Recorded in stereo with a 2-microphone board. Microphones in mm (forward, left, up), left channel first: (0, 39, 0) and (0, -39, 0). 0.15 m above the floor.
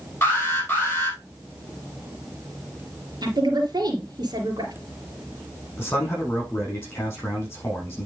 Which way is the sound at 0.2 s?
25° left (ahead or behind).